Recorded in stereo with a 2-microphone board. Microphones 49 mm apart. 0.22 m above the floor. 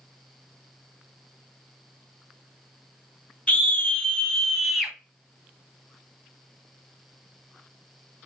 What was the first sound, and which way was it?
A scream, 30° left (ahead or behind).